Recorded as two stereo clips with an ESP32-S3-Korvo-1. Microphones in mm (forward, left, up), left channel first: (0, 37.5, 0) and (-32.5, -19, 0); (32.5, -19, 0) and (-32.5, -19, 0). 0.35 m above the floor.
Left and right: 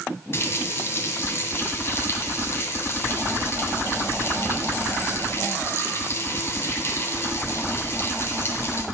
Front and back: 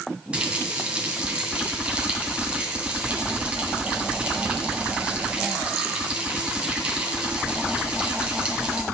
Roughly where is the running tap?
Left.